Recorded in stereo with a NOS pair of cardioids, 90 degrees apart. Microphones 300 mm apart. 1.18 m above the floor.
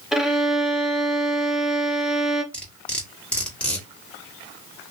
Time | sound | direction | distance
0.1 | a violin | straight ahead | 0.5 m
2.5 | cutlery clinking | 5° left | 1.3 m